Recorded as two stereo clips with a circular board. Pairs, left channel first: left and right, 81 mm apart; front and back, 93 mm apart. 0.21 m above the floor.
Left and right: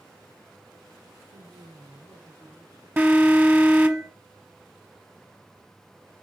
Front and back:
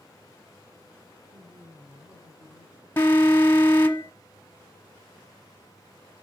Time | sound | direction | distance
1.3 | a man speaking | 105° right | 6.5 m
3.0 | an alarm | 45° right | 1.2 m